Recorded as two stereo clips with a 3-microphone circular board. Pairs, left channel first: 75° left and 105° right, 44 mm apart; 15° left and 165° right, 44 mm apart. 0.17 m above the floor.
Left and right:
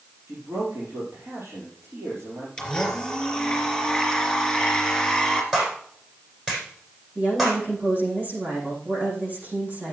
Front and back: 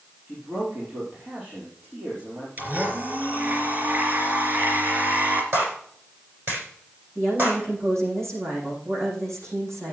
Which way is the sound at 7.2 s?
155° right.